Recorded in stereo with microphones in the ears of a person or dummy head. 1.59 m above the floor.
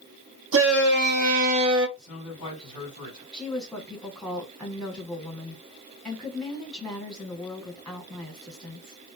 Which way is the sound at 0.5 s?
75° right (ahead or behind).